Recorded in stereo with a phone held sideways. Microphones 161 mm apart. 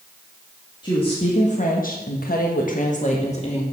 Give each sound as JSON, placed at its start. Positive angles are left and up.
{"t": 0.8, "sound": "a woman speaking", "side_deg": 30, "distance_m": 2.0}